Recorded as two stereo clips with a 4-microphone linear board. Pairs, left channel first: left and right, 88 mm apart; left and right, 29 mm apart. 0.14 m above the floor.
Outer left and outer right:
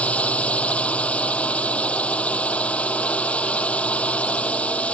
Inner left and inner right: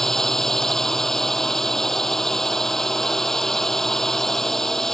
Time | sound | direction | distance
0.0 | a drone | 15° left (ahead or behind) | ?